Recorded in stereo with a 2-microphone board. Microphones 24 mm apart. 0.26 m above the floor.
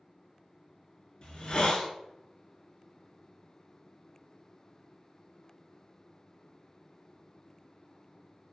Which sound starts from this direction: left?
A hiss, at 1.2 s.